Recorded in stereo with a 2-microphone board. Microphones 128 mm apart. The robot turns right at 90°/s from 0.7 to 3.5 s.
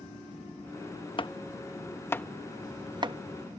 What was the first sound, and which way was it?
Chopping, 40° left (ahead or behind).